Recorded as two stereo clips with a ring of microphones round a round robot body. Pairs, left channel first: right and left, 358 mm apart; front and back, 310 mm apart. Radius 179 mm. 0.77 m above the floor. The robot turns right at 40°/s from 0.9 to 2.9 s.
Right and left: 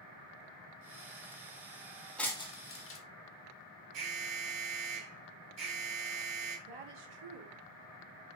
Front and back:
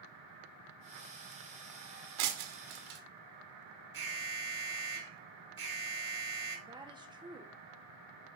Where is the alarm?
135° left, 3.5 m.